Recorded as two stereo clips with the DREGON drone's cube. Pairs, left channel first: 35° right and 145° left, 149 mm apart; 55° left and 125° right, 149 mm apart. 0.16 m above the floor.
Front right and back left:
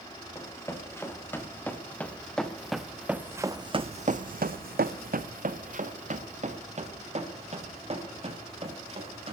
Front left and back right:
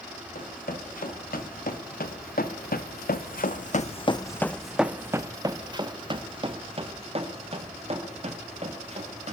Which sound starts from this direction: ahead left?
Running footsteps, at 0.3 s.